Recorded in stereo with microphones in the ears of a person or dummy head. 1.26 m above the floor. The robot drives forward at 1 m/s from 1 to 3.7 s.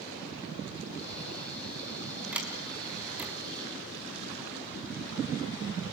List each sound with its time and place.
2.3 s a sliding door: 10° right (ahead or behind), 5 m